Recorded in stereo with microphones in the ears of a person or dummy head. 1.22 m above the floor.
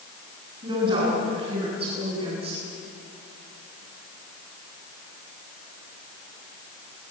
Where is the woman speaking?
30° right (ahead or behind), 10 m; by 2.7 s 40° right (ahead or behind), 9 m.